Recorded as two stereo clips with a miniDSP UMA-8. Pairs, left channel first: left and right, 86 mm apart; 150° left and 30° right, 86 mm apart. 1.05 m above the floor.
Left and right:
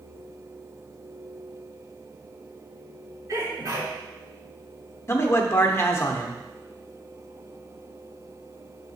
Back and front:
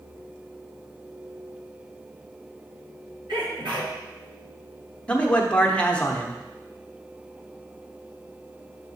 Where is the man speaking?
85° left, 0.9 m.